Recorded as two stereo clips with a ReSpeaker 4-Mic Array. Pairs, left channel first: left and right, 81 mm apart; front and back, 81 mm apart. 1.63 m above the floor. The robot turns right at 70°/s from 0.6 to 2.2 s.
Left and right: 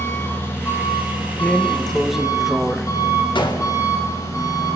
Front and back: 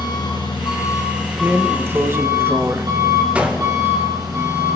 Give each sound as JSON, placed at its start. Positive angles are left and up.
{"t": 0.0, "sound": "an engine running", "azimuth_deg": 30, "distance_m": 8.5}
{"t": 1.4, "sound": "a drawer", "azimuth_deg": 135, "distance_m": 1.0}
{"t": 3.4, "sound": "a gunshot", "azimuth_deg": 105, "distance_m": 2.5}